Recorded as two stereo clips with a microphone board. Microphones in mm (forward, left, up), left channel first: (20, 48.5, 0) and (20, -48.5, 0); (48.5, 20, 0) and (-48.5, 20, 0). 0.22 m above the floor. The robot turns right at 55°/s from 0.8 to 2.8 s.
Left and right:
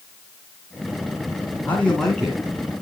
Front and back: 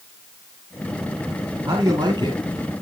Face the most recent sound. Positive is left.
turn(degrees=-145)